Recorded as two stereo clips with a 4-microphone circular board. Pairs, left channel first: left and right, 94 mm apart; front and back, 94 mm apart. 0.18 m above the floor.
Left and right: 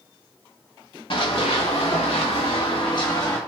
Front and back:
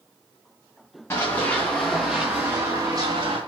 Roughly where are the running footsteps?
Ahead left.